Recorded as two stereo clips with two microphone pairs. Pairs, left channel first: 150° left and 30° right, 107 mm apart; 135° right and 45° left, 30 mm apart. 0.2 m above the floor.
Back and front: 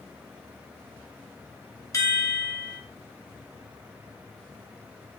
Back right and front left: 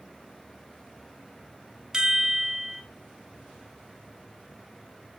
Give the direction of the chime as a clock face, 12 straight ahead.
8 o'clock.